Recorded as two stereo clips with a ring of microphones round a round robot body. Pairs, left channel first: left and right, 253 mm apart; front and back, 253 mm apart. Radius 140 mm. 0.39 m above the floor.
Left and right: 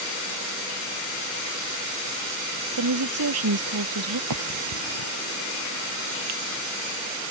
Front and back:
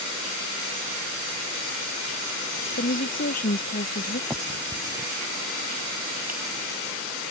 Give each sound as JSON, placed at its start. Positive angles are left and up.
{"t": 2.8, "sound": "a woman speaking", "azimuth_deg": -60}
{"t": 4.3, "sound": "a finger snap", "azimuth_deg": -95}